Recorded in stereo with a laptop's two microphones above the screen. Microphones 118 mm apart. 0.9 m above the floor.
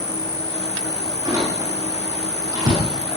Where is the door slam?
30° right (ahead or behind), 6 m.